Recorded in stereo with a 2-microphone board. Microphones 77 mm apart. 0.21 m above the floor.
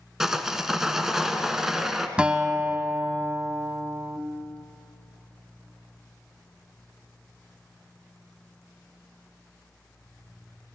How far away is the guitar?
About 0.7 m.